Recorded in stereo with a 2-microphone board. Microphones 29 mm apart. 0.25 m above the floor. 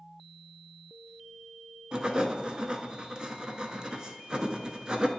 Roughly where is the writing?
Right.